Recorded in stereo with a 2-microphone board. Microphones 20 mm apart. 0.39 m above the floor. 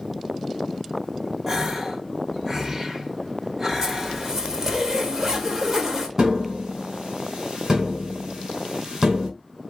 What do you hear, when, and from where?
1.5 s a gasp: 30° right (ahead or behind), 0.9 m
3.8 s a zipper: 30° right (ahead or behind), 1.6 m
6.2 s tapping: 35° right (ahead or behind), 2.5 m